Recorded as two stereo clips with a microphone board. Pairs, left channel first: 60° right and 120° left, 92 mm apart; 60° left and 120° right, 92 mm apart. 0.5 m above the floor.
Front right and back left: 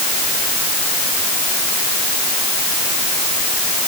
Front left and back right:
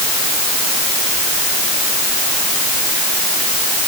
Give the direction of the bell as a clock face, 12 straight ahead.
I don't hear a bell.